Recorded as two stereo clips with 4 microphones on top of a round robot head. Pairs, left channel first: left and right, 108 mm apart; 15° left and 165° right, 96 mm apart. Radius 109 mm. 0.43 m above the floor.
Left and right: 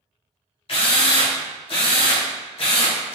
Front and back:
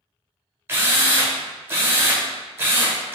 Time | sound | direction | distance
0.7 | a drill | 125° left | 0.8 m